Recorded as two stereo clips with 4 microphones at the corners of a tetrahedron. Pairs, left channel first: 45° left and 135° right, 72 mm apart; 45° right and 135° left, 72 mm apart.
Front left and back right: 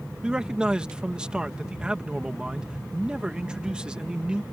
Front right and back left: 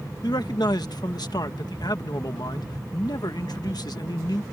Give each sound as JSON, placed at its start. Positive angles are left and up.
{"t": 0.2, "sound": "a man speaking", "azimuth_deg": -60}